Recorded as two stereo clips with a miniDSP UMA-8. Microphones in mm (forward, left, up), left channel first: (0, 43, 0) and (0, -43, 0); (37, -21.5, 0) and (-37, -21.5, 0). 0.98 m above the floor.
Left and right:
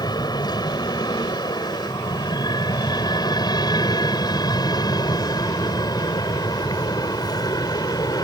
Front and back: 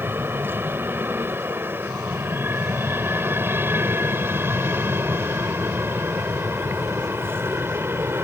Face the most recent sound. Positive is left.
turn(degrees=125)